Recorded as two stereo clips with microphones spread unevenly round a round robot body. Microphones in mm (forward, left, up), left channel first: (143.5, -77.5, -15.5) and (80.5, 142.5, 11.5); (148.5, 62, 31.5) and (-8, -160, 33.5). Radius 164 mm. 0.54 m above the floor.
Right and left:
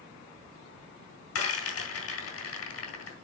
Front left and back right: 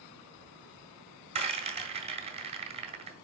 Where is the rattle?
60° right, 3 m.